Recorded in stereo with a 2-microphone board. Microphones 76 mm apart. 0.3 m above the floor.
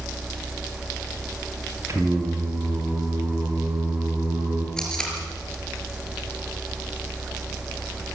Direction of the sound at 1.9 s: 40° right (ahead or behind).